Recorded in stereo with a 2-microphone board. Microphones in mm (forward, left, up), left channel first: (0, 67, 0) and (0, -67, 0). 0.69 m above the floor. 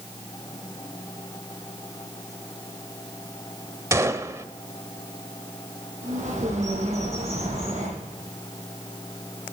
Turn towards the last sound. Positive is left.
turn(degrees=-70)  # may be behind; listen again after turning